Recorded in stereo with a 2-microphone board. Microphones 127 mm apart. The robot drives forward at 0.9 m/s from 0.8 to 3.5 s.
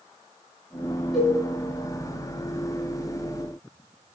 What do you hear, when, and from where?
1.1 s a cowbell: centre (ahead or behind), 4 m